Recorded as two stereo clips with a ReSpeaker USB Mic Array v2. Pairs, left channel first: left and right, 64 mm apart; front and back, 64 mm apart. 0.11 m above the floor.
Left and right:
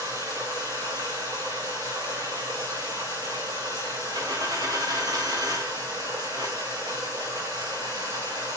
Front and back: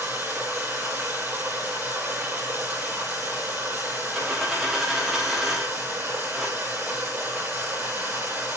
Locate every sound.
0.0 s running water: 110° right, 8.5 m
4.1 s a dropped coin: 90° right, 6.5 m